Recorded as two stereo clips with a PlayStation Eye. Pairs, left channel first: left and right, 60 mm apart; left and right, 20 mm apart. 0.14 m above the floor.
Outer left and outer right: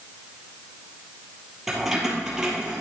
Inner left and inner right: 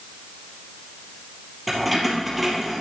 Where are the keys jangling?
5° right (ahead or behind), 3 m; by 2.8 s 15° right (ahead or behind), 3 m.